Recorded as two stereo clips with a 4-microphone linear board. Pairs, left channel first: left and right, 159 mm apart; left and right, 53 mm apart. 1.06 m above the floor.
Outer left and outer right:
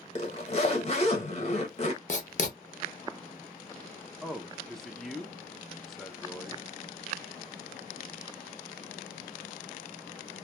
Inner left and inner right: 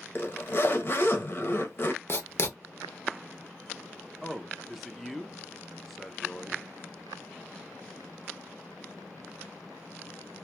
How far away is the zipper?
About 0.8 m.